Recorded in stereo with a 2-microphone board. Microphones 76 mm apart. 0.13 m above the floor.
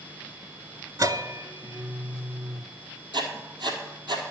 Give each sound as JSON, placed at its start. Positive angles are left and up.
{"t": 1.0, "sound": "a bell", "side_deg": -50, "distance_m": 0.6}
{"t": 3.1, "sound": "writing", "side_deg": -75, "distance_m": 1.6}